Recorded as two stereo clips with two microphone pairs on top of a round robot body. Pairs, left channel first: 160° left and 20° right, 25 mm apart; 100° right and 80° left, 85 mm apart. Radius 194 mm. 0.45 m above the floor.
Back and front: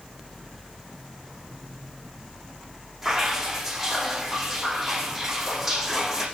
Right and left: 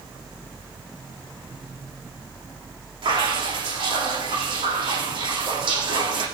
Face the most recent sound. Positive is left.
turn(degrees=65)